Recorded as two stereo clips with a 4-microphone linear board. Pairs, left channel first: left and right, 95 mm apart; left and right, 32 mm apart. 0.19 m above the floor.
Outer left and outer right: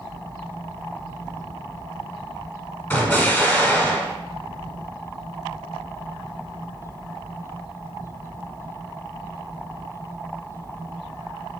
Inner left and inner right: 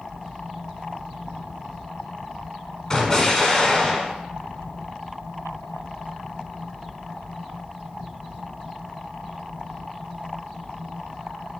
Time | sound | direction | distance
2.9 | an explosion | 20° left (ahead or behind) | 0.8 m